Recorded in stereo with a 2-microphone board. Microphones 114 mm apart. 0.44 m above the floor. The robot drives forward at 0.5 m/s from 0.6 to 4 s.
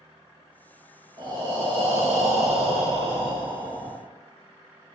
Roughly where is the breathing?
Right.